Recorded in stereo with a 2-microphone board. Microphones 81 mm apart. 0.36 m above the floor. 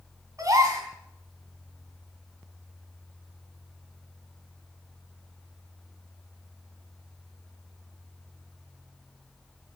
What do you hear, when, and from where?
0.4 s a gasp: 45° right (ahead or behind), 3.5 m